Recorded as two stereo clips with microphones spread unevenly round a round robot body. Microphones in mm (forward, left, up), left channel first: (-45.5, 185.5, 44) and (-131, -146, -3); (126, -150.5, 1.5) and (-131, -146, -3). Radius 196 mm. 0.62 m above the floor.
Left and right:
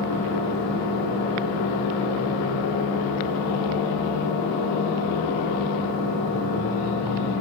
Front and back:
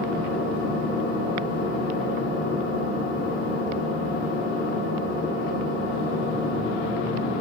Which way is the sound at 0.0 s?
55° left.